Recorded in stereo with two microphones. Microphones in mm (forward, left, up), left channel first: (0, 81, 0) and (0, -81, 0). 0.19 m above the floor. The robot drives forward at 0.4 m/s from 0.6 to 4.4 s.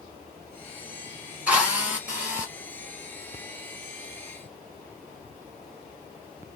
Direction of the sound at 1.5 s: 10° right (ahead or behind).